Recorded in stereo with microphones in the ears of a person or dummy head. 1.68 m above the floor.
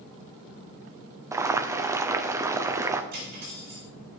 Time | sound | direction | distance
1.3 | boiling | 15° right (ahead or behind) | 0.5 m
3.1 | cutlery clinking | 55° right (ahead or behind) | 2 m